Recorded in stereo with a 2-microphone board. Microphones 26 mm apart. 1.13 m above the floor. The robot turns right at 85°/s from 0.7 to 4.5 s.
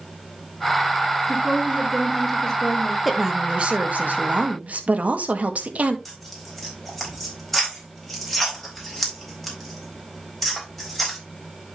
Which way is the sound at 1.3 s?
80° right.